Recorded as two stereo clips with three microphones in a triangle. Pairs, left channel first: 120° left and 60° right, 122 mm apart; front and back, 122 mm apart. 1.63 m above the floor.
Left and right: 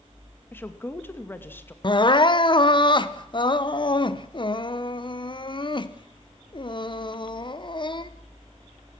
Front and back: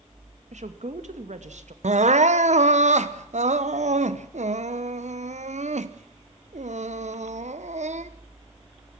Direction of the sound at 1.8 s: 170° left.